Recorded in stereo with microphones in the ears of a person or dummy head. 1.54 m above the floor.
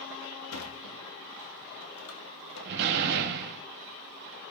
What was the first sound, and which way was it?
A sliding door, 85° left.